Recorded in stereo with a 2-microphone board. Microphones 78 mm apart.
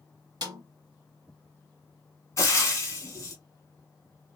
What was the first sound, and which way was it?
A snare drum, 60° right (ahead or behind).